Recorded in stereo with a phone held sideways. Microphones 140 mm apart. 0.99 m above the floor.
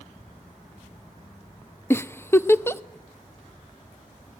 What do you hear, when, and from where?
1.9 s a giggle: 15° left (ahead or behind), 0.6 m